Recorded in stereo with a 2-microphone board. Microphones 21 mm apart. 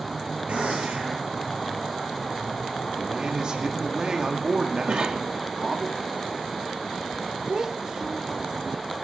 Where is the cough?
45° right (ahead or behind), 2.0 m.